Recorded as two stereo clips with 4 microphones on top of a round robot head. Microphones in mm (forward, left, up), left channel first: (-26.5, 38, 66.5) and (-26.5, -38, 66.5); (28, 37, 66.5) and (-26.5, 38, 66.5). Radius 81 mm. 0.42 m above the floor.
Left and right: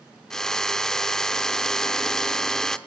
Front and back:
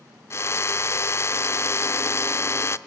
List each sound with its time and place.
0.3 s a drill: 10° left, 0.8 m